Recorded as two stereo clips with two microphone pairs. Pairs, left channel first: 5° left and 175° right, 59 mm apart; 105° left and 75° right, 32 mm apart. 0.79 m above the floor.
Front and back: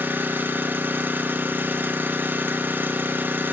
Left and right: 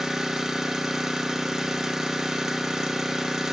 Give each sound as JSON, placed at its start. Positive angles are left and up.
{"t": 0.0, "sound": "an engine running", "azimuth_deg": -140, "distance_m": 0.9}